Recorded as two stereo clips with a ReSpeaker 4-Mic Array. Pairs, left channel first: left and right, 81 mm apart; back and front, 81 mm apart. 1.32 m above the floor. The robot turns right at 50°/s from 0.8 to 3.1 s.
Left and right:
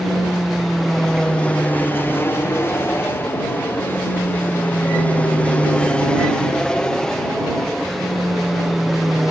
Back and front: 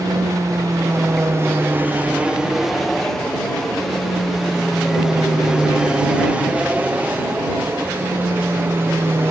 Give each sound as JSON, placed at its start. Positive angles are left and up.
{"t": 0.0, "sound": "an aircraft", "azimuth_deg": 0}